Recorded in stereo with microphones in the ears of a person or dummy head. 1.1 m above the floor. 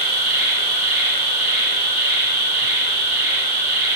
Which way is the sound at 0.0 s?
15° right (ahead or behind).